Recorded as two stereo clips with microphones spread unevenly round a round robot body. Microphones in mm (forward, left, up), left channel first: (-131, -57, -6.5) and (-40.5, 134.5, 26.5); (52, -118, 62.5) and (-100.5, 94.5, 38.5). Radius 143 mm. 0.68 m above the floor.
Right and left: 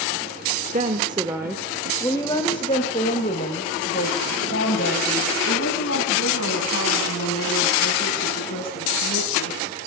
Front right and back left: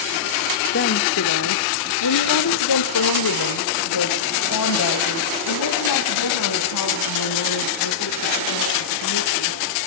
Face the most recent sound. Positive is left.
turn(degrees=-75)